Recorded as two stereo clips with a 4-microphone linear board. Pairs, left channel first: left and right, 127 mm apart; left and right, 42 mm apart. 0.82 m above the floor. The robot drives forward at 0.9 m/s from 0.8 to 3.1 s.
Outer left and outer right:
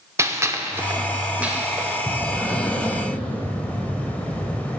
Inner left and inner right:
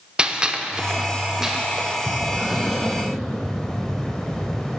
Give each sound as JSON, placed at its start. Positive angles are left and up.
{"t": 0.2, "sound": "a gunshot", "side_deg": -20, "distance_m": 0.5}
{"t": 2.1, "sound": "breathing", "side_deg": 5, "distance_m": 1.7}